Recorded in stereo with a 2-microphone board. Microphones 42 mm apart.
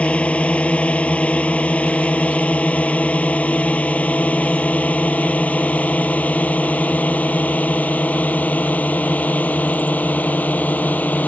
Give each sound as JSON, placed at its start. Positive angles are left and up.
{"t": 0.0, "sound": "a drone", "side_deg": 30}